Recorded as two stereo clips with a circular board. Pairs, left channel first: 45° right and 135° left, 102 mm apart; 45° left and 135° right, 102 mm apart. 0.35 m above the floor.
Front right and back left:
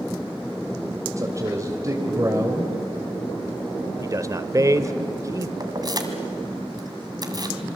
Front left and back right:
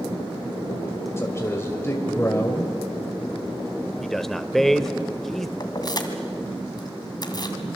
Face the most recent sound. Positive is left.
turn(degrees=90)